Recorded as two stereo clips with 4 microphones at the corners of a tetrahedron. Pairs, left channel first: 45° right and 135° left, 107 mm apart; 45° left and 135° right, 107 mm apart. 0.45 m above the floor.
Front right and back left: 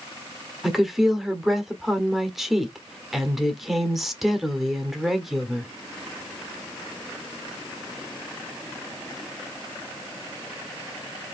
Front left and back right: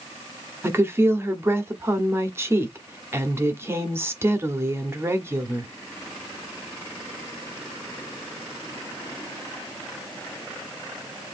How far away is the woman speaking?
About 1.1 m.